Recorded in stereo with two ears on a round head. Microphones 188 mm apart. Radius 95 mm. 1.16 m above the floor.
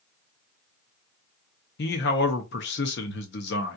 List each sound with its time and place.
1.8 s a man speaking: 55° left (ahead or behind), 0.7 m